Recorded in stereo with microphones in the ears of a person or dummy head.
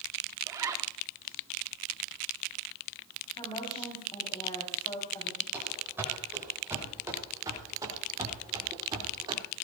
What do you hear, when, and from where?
0.5 s a zipper: 15° right (ahead or behind), 0.9 m
3.4 s a woman speaking: 25° left (ahead or behind), 4 m
5.5 s running footsteps: 10° right (ahead or behind), 6.5 m; by 9.4 s 25° right (ahead or behind), 4 m